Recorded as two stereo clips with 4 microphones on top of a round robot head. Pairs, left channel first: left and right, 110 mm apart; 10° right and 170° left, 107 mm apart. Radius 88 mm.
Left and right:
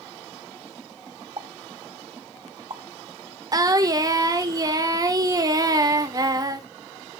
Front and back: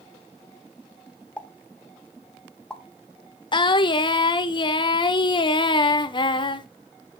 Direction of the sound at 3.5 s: 40° right.